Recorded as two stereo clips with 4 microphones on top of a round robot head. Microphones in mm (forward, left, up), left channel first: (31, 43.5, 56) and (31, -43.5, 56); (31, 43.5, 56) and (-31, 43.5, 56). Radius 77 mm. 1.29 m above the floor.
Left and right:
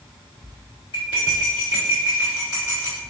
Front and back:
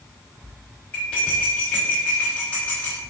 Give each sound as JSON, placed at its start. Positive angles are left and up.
{"t": 0.9, "sound": "cutlery clinking", "azimuth_deg": 65, "distance_m": 1.3}